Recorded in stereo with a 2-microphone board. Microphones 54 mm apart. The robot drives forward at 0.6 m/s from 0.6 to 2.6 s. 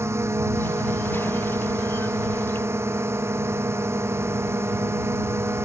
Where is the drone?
55° right (ahead or behind).